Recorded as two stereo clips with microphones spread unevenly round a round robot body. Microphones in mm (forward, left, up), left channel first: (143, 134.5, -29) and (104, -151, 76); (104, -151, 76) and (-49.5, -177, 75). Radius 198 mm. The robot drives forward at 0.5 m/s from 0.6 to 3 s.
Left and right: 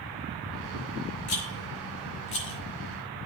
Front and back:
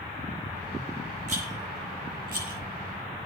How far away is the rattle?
About 2.5 m.